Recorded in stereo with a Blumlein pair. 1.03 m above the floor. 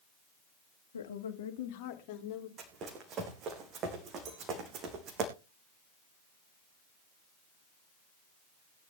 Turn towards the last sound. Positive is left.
turn(degrees=-35)